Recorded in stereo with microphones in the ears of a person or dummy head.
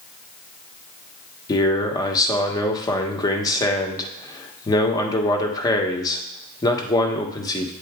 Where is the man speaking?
25° left (ahead or behind), 1.1 m.